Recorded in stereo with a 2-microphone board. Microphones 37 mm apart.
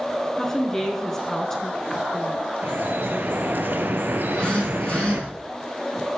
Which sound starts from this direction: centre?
A woman speaking, at 0.4 s.